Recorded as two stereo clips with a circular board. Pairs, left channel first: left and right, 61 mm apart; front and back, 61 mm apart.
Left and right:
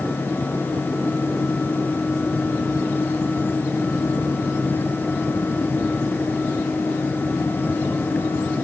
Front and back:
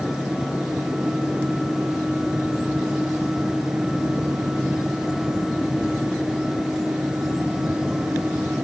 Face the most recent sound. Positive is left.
No sound to turn to.